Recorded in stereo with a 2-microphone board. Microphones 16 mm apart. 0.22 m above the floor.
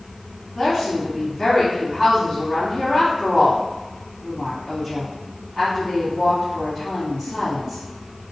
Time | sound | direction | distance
0.6 | a woman speaking | 20° left (ahead or behind) | 1.8 m